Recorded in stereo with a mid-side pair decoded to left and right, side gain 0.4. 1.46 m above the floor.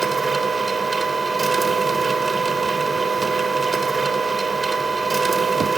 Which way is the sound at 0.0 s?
25° right.